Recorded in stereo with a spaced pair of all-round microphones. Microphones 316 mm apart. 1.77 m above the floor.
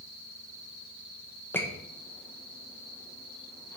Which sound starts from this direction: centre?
A squeak, at 1.5 s.